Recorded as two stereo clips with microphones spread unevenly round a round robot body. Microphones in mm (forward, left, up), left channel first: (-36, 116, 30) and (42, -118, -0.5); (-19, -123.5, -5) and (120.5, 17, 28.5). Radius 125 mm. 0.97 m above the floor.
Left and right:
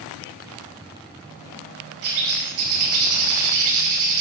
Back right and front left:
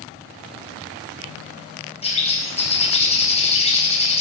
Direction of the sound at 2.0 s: 75° right.